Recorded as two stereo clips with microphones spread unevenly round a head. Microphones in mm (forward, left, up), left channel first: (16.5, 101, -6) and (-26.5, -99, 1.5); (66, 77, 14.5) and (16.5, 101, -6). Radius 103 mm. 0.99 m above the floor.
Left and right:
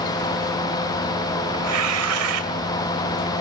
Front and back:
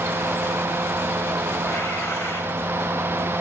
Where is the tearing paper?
100° right, 2.5 m.